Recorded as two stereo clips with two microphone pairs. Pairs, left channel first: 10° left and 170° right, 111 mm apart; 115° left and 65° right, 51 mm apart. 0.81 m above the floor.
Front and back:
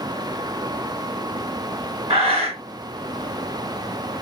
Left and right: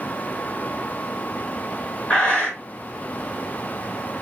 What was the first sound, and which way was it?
Breathing, straight behind.